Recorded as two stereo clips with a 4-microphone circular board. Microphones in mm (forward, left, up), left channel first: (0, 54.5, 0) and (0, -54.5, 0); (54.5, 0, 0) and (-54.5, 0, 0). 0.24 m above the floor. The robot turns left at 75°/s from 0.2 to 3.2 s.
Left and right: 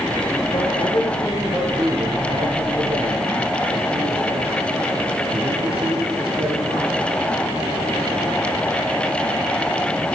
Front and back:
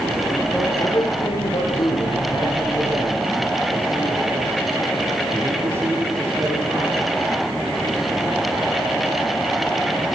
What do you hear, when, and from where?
0.5 s a man speaking: 85° left, 6 m; by 7.1 s 115° right, 6 m